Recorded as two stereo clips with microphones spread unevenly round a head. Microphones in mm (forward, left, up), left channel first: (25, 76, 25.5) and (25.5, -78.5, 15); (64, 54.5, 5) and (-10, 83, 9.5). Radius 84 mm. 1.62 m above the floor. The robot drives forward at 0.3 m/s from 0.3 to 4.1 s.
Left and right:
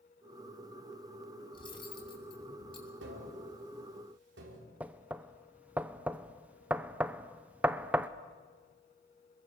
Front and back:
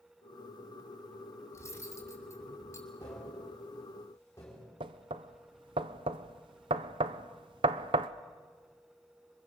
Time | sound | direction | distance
1.5 | cutlery clinking | 30° left | 8 m
3.0 | tapping | 90° right | 5 m
4.8 | knocking | 175° right | 0.6 m